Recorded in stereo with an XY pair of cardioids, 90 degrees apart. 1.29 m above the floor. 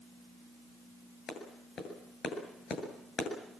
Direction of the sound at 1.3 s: 70° left.